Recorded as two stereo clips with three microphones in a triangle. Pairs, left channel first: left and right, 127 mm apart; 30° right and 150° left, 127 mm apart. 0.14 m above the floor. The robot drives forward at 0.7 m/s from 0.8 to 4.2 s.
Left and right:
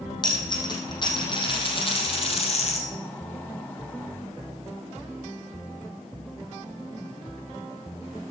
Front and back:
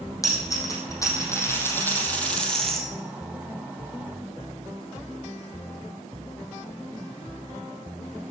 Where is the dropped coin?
35° left, 3 m; by 2.9 s 60° left, 1.9 m.